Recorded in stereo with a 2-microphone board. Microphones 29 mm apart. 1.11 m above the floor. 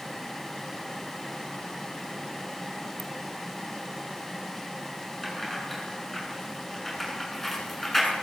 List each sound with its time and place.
3.0 s a ringtone: 5° left (ahead or behind), 1.6 m
5.2 s keys jangling: 10° left (ahead or behind), 8 m